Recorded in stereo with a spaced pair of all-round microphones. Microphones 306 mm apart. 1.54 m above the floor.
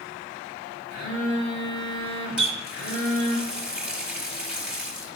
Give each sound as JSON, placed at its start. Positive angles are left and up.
{"t": 0.9, "sound": "a phone buzzing", "side_deg": 65, "distance_m": 3.5}
{"t": 2.4, "sound": "a running tap", "side_deg": -5, "distance_m": 1.5}